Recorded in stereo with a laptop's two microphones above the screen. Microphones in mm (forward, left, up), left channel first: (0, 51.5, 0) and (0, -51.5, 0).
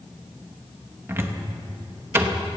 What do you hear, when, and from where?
1.1 s a cupboard door: 25° right (ahead or behind), 0.7 m